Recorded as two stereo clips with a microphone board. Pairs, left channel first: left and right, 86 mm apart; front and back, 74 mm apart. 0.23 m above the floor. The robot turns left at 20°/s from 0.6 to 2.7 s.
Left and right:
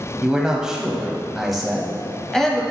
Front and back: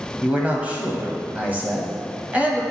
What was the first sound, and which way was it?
A man speaking, 155° right.